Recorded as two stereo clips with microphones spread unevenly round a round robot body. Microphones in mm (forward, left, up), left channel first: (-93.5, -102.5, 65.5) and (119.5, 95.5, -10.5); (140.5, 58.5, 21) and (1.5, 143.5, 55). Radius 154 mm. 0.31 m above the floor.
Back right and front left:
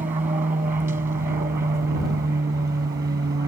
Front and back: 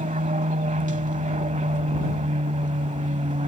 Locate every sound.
0.0 s an aircraft: 115° left; by 3.5 s 105° left